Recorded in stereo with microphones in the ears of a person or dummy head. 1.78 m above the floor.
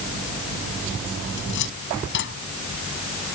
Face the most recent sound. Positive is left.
turn(degrees=55)  # may be behind; listen again after turning